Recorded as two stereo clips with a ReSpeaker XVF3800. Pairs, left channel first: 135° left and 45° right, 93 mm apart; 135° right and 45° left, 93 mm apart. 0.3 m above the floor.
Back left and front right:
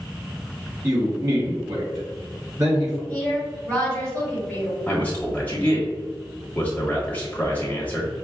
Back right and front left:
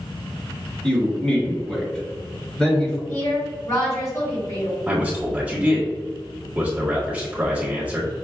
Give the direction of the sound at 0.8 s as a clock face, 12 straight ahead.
2 o'clock.